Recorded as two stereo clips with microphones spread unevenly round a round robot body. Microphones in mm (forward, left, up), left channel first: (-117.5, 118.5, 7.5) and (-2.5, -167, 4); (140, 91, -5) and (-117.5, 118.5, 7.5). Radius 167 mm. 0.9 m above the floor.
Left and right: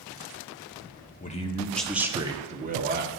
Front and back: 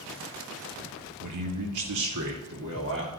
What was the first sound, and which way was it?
A man speaking, 175° left.